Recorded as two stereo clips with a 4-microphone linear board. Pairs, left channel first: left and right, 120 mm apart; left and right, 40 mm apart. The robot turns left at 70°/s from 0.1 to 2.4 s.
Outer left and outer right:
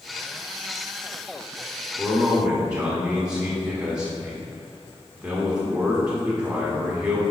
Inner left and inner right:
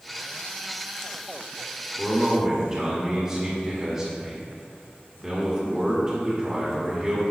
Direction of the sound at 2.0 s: 10° right (ahead or behind).